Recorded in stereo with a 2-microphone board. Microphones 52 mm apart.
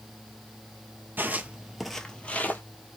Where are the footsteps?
40° right (ahead or behind), 0.7 m; by 2.6 s 35° left (ahead or behind), 0.8 m.